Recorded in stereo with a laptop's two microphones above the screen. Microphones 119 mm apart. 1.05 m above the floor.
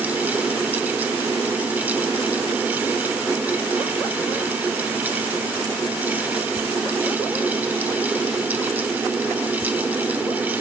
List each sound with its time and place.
0.0 s a fan: 15° right (ahead or behind), 0.8 m